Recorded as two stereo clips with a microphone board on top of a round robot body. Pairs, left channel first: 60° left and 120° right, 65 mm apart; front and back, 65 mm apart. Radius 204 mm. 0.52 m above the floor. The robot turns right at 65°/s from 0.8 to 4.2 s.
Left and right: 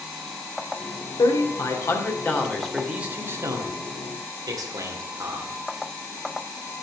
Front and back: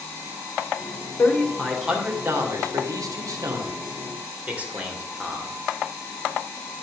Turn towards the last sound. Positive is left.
turn(degrees=-110)